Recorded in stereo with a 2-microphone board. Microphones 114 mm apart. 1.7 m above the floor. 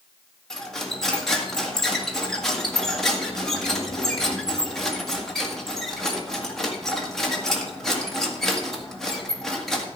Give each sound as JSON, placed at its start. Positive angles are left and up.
{"t": 0.5, "sound": "cutlery clinking", "side_deg": 5, "distance_m": 1.8}